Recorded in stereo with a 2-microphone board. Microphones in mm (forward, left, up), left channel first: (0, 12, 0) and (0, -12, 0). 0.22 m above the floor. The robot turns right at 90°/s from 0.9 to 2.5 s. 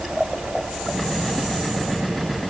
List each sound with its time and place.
Only background noise.